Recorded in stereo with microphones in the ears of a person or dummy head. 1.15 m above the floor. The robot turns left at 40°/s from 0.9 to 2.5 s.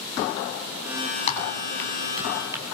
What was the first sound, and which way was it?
Typing on a keyboard, 35° left (ahead or behind).